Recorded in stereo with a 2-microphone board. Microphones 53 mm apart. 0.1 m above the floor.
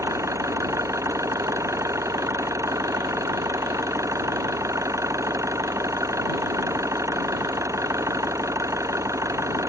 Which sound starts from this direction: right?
An engine running, at 0.0 s.